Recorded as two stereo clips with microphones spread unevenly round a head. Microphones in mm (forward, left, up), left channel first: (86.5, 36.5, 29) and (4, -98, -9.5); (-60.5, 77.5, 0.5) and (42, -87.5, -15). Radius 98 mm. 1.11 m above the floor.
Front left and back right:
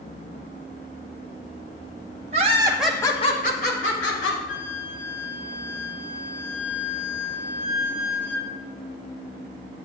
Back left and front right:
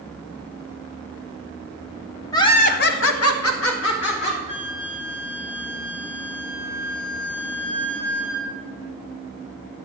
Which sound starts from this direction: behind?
Laughter, at 2.3 s.